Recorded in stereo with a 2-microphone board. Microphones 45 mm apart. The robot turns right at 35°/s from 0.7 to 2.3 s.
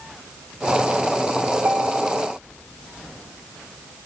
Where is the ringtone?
70° right (ahead or behind), 1.5 m; by 2.3 s 65° right (ahead or behind), 1.5 m.